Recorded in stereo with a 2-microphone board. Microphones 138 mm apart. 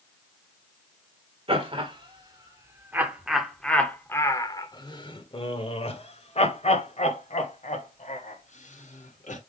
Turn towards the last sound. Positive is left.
turn(degrees=70)  # may be behind; listen again after turning